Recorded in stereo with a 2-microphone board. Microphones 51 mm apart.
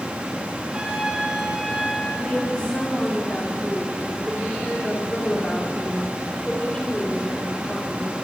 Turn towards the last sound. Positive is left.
turn(degrees=20)  # may be behind; listen again after turning